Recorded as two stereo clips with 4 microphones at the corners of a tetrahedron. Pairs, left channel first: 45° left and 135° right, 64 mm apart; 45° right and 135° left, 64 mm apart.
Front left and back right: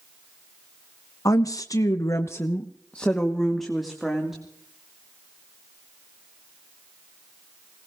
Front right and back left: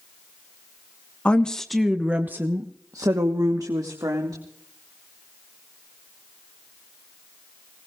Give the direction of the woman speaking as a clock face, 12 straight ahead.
11 o'clock.